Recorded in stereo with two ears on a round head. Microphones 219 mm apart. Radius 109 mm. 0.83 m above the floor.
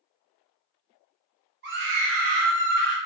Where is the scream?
45° right (ahead or behind), 0.9 m; by 3.0 s 40° right (ahead or behind), 1.0 m.